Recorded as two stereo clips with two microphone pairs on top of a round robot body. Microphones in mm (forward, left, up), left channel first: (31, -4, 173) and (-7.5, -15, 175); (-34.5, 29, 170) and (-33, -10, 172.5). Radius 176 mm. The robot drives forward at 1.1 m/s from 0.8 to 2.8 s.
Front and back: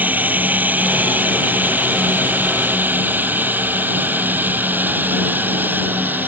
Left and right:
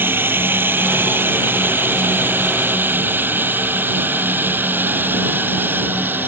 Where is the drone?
115° right; by 6.3 s 120° right.